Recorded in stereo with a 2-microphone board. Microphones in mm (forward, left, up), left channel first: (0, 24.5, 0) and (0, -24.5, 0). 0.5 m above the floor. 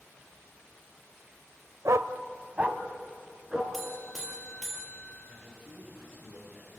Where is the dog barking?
80° right, 0.6 m; by 3.6 s 15° right (ahead or behind), 2.5 m.